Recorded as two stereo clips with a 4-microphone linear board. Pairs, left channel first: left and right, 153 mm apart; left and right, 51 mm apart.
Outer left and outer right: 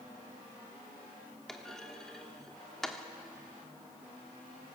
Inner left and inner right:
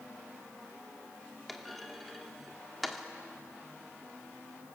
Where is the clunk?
5° left (ahead or behind), 1.3 m.